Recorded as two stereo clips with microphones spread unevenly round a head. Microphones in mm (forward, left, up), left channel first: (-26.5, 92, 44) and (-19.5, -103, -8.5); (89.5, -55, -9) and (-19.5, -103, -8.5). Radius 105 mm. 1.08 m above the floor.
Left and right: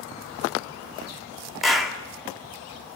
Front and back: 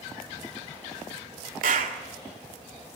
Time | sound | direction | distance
1.6 | a clap | 175° right | 2.0 m